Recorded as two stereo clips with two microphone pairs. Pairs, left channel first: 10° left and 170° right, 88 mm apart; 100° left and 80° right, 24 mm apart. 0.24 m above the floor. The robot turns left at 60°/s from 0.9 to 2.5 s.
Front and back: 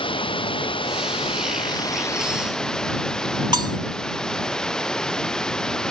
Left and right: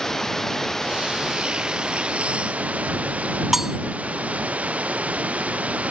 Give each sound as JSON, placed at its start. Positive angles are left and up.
{"t": 0.0, "sound": "running water", "azimuth_deg": 25}
{"t": 3.5, "sound": "cutlery clinking", "azimuth_deg": -160}